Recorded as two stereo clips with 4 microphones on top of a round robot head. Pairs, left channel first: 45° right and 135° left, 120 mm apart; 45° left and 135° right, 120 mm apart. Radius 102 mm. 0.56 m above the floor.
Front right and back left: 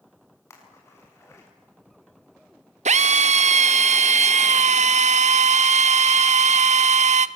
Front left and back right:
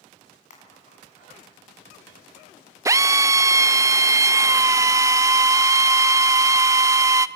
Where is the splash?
25° left, 6.5 m.